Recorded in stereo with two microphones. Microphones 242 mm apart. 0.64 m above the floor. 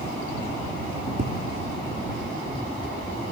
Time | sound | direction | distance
1.2 | tapping | 45° right (ahead or behind) | ?